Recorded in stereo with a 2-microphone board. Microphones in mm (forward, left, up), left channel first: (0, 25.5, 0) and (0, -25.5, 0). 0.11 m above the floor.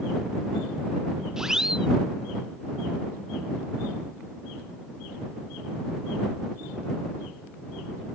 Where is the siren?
10° right (ahead or behind).